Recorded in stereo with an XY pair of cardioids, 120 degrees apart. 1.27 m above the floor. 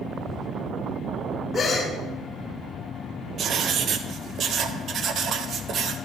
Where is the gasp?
30° left, 3.5 m.